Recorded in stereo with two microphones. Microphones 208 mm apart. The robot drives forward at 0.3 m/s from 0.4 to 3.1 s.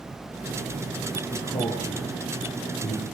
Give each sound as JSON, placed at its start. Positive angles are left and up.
{"t": 1.3, "sound": "a man speaking", "side_deg": 40, "distance_m": 8.0}